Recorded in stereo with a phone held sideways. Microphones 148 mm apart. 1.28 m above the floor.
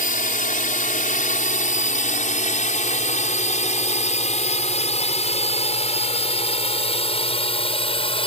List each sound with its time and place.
0.0 s a drone: 70° left (ahead or behind); by 8.3 s 40° left (ahead or behind)